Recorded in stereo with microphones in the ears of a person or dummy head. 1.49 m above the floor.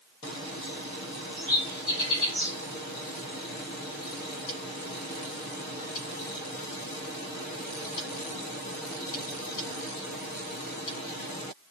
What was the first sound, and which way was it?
A bird, 35° right (ahead or behind).